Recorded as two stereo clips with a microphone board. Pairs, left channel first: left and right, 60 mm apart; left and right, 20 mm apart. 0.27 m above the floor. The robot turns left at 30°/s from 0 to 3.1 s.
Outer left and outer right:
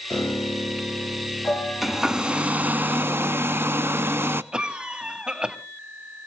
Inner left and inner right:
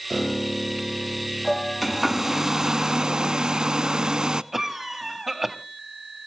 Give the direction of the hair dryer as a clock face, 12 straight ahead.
12 o'clock.